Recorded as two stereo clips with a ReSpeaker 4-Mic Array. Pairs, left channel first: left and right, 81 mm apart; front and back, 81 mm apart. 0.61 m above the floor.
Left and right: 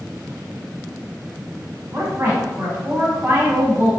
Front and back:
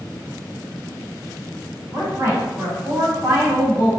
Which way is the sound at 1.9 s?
145° right.